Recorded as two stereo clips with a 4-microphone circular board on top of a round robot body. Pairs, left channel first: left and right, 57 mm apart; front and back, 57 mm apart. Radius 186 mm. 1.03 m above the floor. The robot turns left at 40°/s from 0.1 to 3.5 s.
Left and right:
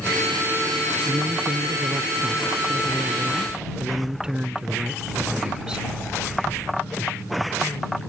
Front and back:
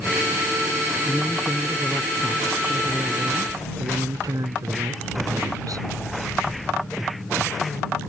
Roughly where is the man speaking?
Ahead right.